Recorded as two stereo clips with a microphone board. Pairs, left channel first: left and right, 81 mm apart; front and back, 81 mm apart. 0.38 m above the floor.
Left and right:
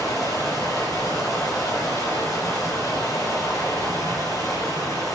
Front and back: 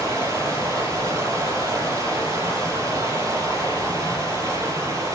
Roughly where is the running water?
Behind left.